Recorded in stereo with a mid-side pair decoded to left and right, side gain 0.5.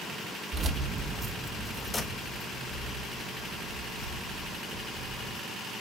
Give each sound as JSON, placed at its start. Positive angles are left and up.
{"t": 0.5, "sound": "keys jangling", "azimuth_deg": -45, "distance_m": 1.2}